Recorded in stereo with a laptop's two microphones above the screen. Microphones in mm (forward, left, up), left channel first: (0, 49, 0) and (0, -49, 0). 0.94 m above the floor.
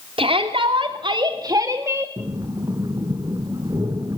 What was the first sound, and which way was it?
A shout, 65° right (ahead or behind).